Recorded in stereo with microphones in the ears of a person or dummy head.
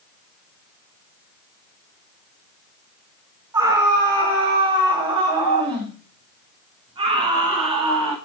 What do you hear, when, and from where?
3.5 s a scream: 25° right (ahead or behind), 3.5 m; by 8.2 s 35° right (ahead or behind), 7 m